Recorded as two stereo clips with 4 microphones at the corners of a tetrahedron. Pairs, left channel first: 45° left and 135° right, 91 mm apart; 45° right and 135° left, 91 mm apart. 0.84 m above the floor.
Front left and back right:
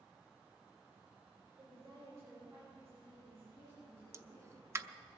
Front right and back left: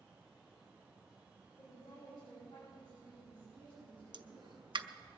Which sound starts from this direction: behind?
A pop, at 4.1 s.